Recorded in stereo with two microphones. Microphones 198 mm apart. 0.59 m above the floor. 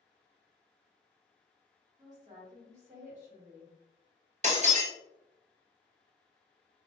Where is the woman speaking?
40° right (ahead or behind), 1.5 m.